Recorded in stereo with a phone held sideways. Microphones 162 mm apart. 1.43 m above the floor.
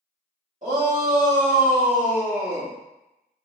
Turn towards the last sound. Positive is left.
turn(degrees=-50)  # may be behind; listen again after turning